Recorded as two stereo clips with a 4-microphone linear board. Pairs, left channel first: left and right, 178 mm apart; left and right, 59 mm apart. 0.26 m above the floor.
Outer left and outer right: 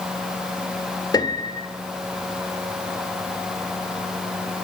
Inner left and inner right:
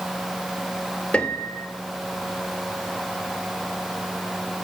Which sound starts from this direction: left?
A piano, at 1.1 s.